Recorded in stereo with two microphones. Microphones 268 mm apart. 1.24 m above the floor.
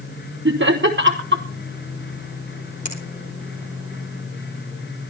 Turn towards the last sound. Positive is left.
turn(degrees=30)  # may be behind; listen again after turning